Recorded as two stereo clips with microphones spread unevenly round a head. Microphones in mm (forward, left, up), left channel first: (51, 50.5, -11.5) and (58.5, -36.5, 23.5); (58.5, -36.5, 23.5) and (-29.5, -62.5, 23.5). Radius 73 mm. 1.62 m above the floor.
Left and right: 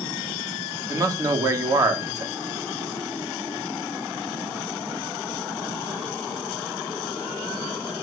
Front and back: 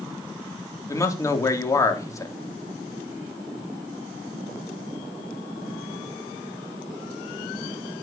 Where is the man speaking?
40° right, 3.5 m.